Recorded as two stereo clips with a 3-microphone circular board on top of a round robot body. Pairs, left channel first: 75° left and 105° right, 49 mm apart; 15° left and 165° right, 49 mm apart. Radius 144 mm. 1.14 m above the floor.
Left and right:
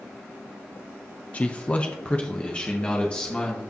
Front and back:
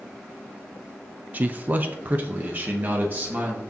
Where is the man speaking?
140° left, 0.5 m; by 3.6 s 145° left, 1.9 m.